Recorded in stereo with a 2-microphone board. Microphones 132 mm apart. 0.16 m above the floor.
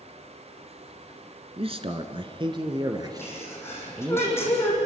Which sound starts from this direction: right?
A man speaking, at 1.6 s.